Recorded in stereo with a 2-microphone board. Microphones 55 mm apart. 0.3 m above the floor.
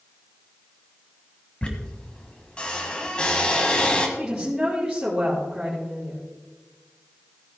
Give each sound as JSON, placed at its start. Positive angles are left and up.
{"t": 1.6, "sound": "a squeak", "side_deg": 20, "distance_m": 1.6}
{"t": 4.2, "sound": "a woman speaking", "side_deg": -10, "distance_m": 4.5}